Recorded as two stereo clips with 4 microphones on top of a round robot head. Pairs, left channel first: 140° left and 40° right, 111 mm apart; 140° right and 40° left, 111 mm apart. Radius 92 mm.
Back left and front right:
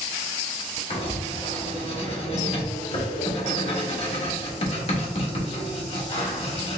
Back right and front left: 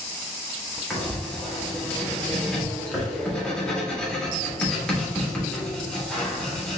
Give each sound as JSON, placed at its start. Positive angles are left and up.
{"t": 0.9, "sound": "writing", "azimuth_deg": 140, "distance_m": 1.5}